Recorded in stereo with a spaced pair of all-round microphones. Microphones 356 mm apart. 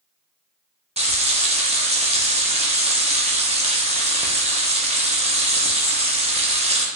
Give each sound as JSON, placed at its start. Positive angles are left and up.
{"t": 1.0, "sound": "frying", "side_deg": -20, "distance_m": 0.5}